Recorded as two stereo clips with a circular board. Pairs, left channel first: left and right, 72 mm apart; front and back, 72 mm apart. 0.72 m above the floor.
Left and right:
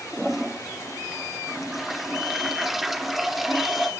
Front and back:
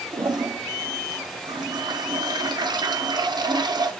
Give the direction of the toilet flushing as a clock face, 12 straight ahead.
6 o'clock.